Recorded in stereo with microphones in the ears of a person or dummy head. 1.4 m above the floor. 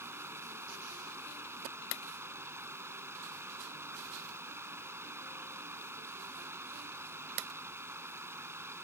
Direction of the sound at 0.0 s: 15° right (ahead or behind).